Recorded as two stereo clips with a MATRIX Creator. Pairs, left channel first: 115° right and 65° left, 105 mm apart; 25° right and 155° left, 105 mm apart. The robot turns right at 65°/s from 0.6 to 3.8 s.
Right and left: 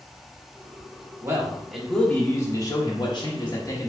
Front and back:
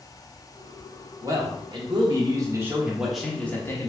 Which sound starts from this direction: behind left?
A man speaking, at 1.2 s.